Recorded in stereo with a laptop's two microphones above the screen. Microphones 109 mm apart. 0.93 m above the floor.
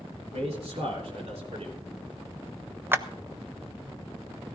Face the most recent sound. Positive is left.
turn(degrees=-20)  # may be behind; listen again after turning